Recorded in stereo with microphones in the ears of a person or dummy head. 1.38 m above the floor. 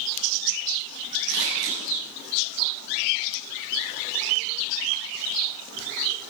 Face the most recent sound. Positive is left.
turn(degrees=-65)  # may be behind; listen again after turning